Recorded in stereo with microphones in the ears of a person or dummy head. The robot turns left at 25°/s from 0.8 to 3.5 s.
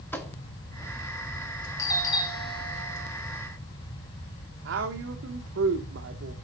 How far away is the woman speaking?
About 1.2 m.